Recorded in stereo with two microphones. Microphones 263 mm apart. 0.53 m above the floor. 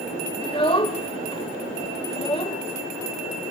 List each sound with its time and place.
0.4 s a child speaking: 20° left (ahead or behind), 1.0 m